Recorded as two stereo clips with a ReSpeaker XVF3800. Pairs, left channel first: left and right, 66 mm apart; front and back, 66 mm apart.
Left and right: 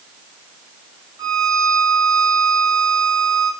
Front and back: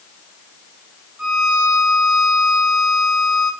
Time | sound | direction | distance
1.2 | a violin | 110° right | 5 m